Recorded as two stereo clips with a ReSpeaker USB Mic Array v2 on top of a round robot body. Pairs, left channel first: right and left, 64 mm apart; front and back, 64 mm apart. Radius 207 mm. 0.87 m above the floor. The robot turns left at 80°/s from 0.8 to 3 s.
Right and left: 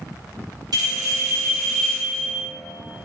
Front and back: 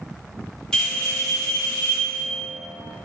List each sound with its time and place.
0.7 s a bell: 80° left, 0.8 m; by 2.4 s 55° right, 0.8 m